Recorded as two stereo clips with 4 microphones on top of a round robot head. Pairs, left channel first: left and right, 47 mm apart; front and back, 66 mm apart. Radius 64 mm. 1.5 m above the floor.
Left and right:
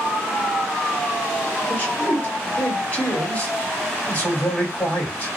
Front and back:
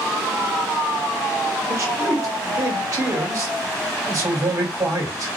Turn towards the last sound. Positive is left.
turn(degrees=150)